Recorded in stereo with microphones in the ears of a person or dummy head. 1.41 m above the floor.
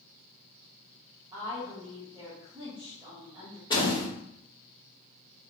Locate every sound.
1.3 s a woman speaking: 20° right (ahead or behind), 1.5 m
3.7 s a door slam: 25° left (ahead or behind), 2.5 m